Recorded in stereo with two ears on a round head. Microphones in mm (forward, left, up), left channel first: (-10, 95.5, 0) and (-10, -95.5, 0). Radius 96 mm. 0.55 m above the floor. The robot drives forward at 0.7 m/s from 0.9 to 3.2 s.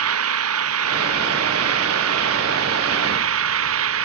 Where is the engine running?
80° right; by 4.0 s 75° right (ahead or behind).